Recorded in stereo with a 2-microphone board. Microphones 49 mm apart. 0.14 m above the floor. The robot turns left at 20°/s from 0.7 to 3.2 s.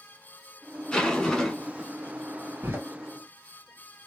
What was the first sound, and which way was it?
A zipper, 10° left (ahead or behind).